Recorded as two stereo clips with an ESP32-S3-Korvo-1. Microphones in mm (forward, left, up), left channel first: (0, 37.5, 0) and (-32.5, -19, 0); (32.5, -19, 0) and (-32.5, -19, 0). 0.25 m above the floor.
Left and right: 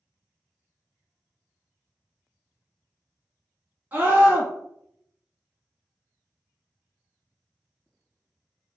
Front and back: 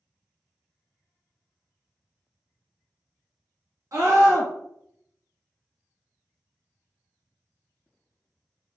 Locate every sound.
3.9 s a scream: 175° right, 2 m